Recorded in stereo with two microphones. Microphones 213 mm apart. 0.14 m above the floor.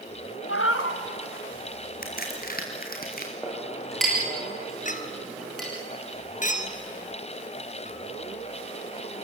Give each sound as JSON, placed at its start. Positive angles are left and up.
{"t": 0.5, "sound": "a cat meowing", "side_deg": 85, "distance_m": 2.0}
{"t": 2.0, "sound": "a crack", "side_deg": 45, "distance_m": 4.0}
{"t": 3.4, "sound": "a clink", "side_deg": 0, "distance_m": 8.0}
{"t": 4.8, "sound": "a clink", "side_deg": 35, "distance_m": 1.6}